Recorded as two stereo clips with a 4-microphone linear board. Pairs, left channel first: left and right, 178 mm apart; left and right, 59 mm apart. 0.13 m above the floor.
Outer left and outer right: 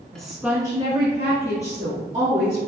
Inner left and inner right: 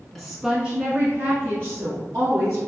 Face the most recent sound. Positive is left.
turn(degrees=-45)  # may be behind; listen again after turning